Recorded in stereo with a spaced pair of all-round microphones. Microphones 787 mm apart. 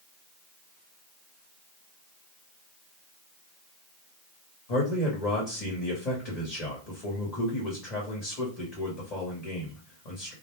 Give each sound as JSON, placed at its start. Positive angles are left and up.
{"t": 4.7, "sound": "a man speaking", "side_deg": 50, "distance_m": 1.0}